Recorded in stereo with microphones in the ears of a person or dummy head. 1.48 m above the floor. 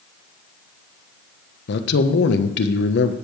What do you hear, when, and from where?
1.7 s a man speaking: 65° left (ahead or behind), 1.2 m